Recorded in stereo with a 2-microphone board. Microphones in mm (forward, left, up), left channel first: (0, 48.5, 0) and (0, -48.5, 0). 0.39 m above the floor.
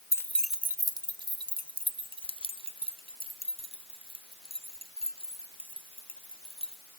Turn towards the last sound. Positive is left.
turn(degrees=-75)  # may be behind; listen again after turning